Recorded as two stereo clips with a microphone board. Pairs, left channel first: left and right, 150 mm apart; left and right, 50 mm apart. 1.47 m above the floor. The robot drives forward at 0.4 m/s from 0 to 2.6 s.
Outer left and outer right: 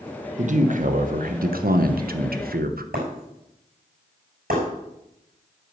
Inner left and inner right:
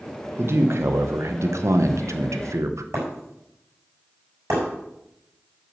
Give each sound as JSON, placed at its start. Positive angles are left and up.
{"t": 0.4, "sound": "a man speaking", "side_deg": -55, "distance_m": 1.3}
{"t": 2.9, "sound": "breaking glass", "side_deg": -75, "distance_m": 6.0}